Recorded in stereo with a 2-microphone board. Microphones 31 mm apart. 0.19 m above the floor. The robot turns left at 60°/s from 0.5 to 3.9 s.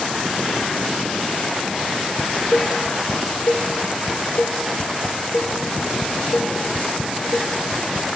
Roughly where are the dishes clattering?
Centre.